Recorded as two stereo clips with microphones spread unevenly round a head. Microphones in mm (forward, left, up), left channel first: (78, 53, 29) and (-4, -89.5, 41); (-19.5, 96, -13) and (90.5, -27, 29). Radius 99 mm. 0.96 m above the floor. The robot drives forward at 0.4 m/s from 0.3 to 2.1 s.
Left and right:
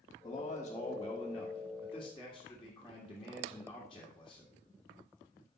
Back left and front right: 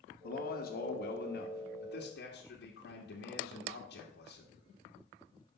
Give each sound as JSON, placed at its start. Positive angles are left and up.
{"t": 0.2, "sound": "a man speaking", "azimuth_deg": 125, "distance_m": 1.2}